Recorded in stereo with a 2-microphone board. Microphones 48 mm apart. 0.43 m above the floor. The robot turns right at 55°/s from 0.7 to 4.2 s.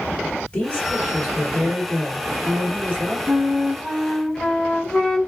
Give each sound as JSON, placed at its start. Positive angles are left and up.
{"t": 0.5, "sound": "a woman speaking", "azimuth_deg": 140, "distance_m": 1.6}
{"t": 3.3, "sound": "a flute", "azimuth_deg": -40, "distance_m": 0.6}